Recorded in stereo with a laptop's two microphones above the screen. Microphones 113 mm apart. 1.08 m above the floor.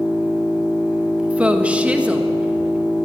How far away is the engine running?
About 5 m.